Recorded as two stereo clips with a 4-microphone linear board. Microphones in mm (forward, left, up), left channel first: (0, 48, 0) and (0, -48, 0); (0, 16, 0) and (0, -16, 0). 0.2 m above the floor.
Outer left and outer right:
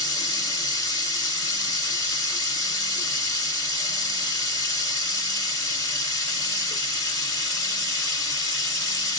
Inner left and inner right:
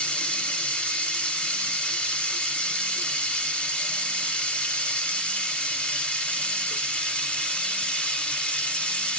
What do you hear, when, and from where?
0.0 s running water: 40° left (ahead or behind), 1.7 m